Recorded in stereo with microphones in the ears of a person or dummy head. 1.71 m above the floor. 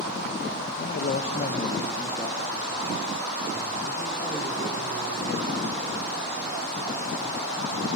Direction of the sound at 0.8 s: 50° left (ahead or behind).